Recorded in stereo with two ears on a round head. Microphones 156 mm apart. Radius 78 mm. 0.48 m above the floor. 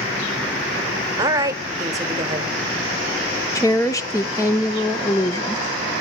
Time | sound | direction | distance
1.2 | a woman speaking | 20° right (ahead or behind) | 1.2 m
3.5 | a woman speaking | 20° left (ahead or behind) | 0.8 m